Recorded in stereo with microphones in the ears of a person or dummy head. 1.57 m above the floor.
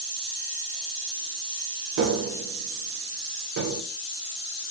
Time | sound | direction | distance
2.0 | tapping | 55° right (ahead or behind) | 0.6 m